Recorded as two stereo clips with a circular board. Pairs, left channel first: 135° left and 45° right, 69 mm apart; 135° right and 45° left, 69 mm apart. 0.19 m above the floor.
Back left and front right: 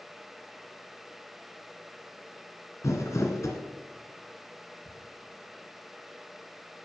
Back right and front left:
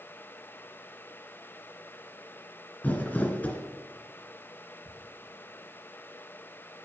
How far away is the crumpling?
About 2 m.